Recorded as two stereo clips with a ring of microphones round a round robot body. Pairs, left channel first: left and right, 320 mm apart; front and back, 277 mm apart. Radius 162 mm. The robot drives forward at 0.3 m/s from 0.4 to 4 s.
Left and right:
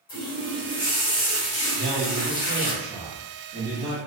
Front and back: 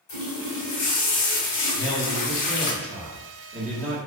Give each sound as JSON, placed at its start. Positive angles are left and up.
{"t": 0.1, "sound": "a running tap", "azimuth_deg": 15, "distance_m": 1.4}
{"t": 1.7, "sound": "a man speaking", "azimuth_deg": -45, "distance_m": 0.8}